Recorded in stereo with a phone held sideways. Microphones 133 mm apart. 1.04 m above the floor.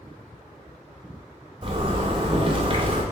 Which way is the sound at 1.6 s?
40° right (ahead or behind).